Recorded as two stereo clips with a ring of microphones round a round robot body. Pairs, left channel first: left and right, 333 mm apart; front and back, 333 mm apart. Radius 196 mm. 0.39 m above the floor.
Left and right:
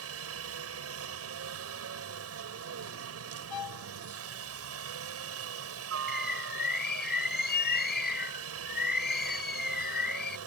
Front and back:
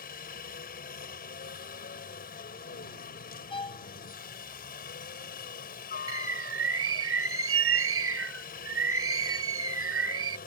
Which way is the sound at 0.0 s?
60° right.